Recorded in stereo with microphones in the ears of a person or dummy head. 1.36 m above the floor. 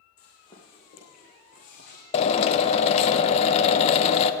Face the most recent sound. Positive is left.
turn(degrees=40)  # may be behind; listen again after turning